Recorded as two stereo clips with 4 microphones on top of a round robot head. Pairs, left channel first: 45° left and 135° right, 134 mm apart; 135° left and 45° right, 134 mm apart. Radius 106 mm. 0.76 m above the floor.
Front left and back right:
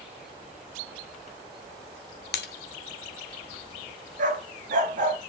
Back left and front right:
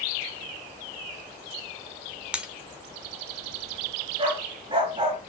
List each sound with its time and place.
2.3 s breaking glass: 35° left, 1.1 m
4.2 s a dog barking: 100° right, 4 m